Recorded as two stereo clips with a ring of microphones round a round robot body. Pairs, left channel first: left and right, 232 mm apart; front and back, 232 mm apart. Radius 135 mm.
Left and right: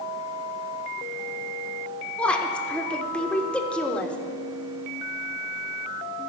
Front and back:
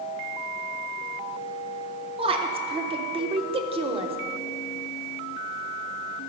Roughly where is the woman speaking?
Behind.